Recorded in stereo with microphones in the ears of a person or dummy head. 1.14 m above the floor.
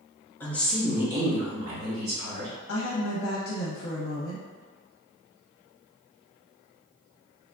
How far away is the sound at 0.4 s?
About 0.9 m.